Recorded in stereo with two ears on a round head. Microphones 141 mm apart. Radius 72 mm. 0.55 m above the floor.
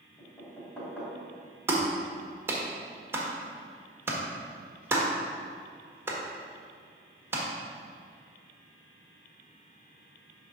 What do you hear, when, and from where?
0.2 s knocking: 10° left (ahead or behind), 3 m
1.7 s a clap: 15° right (ahead or behind), 1.6 m